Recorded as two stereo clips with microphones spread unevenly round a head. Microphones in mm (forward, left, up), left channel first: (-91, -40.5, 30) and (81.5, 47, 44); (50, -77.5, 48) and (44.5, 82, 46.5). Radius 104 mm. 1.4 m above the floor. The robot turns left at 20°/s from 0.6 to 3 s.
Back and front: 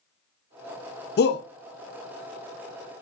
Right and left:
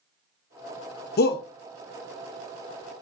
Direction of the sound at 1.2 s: 115° right.